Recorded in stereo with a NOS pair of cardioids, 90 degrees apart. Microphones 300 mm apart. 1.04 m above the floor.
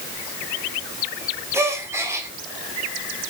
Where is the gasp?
10° right, 1.4 m.